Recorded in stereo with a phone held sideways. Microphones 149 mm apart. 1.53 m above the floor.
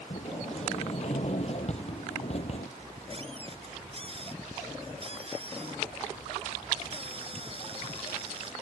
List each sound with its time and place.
0.1 s a sliding door: 45° left (ahead or behind)
2.8 s a squeak: 40° right (ahead or behind)